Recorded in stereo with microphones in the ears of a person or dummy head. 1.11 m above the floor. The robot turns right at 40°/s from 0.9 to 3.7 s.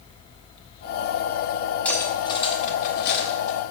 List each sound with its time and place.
1.9 s cutlery clinking: 10° left (ahead or behind), 1.3 m; by 3.6 s 75° left (ahead or behind), 1.3 m